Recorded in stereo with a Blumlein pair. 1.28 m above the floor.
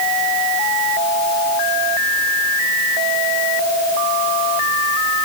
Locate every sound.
Only background noise.